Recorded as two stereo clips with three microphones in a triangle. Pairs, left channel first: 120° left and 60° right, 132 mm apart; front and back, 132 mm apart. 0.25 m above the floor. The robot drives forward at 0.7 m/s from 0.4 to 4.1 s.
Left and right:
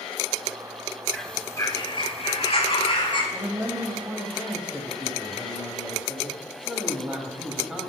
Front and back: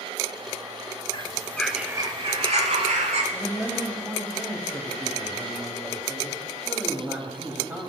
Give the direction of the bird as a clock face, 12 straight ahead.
11 o'clock.